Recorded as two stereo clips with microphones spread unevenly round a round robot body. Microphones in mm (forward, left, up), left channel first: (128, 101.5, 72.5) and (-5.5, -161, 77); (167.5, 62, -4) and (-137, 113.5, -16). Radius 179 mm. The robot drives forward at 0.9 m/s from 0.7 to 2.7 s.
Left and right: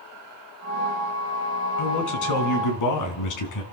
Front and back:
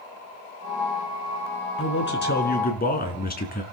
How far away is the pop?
No pop in this recording.